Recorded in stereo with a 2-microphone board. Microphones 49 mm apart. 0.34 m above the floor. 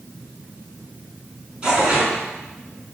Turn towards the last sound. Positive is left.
turn(degrees=-20)  # may be behind; listen again after turning